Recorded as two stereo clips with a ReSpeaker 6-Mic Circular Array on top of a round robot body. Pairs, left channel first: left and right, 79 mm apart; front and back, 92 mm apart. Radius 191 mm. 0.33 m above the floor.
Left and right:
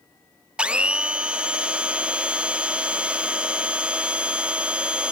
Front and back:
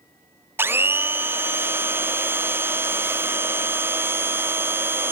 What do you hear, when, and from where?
0.6 s a blender: 150° right, 0.9 m